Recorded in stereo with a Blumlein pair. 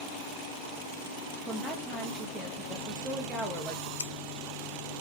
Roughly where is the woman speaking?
Ahead.